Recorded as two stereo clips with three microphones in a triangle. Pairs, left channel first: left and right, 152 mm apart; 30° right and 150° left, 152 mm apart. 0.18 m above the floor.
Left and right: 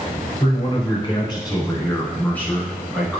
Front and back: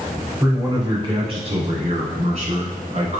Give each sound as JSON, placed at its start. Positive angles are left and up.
{"t": 0.4, "sound": "a man speaking", "azimuth_deg": 90, "distance_m": 1.6}